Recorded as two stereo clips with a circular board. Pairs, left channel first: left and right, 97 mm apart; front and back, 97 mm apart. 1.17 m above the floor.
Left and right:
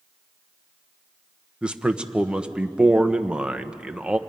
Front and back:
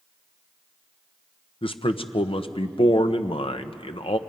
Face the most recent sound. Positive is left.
turn(degrees=-10)